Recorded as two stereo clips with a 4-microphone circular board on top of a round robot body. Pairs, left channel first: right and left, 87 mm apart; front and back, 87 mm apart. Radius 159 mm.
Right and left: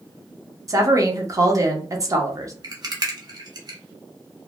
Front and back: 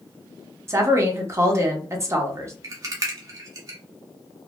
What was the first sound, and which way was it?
A woman speaking, 130° left.